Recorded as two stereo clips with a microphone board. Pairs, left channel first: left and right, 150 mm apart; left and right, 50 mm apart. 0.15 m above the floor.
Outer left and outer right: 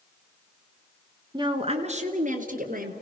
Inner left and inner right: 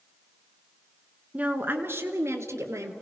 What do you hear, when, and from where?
1.3 s a woman speaking: 25° right (ahead or behind), 1.6 m; by 2.9 s 65° right (ahead or behind), 3 m